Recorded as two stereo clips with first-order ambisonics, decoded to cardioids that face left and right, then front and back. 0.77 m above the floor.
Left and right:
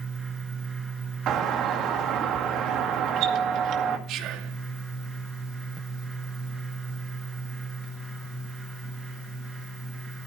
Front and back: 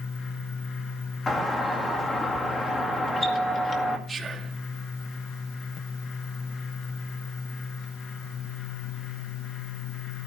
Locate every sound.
1.3 s a doorbell: 70° right, 2 m
4.1 s whispering: 110° right, 1.7 m